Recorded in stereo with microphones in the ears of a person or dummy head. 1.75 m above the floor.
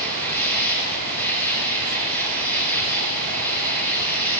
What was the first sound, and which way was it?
An insect, 10° left (ahead or behind).